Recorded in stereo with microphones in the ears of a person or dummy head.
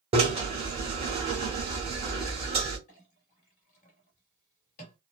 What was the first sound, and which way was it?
A drill, 30° right (ahead or behind).